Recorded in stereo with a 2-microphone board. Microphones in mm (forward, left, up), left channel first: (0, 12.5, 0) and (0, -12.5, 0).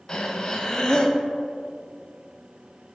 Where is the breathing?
30° left (ahead or behind), 0.6 m.